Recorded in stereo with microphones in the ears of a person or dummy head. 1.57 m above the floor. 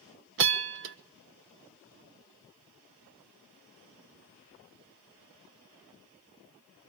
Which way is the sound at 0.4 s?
65° right (ahead or behind).